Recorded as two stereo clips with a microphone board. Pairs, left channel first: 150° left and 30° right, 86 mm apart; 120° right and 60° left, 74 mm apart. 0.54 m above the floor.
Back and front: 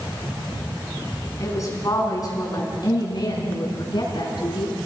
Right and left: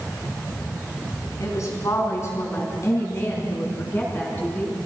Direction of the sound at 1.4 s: 160° right.